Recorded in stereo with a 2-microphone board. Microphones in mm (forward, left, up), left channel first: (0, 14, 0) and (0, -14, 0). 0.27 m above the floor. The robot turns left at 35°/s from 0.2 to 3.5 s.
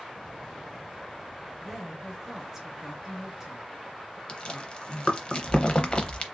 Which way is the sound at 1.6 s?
5° right (ahead or behind).